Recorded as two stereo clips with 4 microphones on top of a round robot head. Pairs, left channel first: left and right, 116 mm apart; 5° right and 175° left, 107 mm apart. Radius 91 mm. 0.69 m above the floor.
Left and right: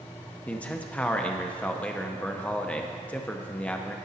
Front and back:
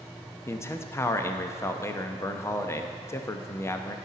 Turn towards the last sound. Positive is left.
turn(degrees=25)